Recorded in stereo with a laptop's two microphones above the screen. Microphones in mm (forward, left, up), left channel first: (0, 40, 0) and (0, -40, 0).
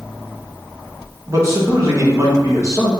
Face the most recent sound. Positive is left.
turn(degrees=-35)  # may be behind; listen again after turning